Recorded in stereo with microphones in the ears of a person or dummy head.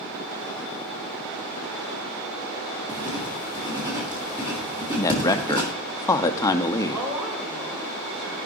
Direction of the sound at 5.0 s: 25° left (ahead or behind).